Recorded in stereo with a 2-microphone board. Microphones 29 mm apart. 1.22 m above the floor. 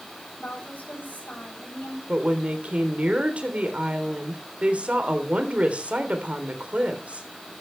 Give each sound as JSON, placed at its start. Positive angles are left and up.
{"t": 0.4, "sound": "a woman speaking", "side_deg": 75, "distance_m": 8.0}
{"t": 2.1, "sound": "a woman speaking", "side_deg": -50, "distance_m": 3.5}